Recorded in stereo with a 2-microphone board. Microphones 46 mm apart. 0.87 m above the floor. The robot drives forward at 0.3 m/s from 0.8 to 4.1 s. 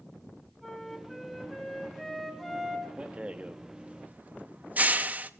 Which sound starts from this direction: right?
A rattle, at 3.0 s.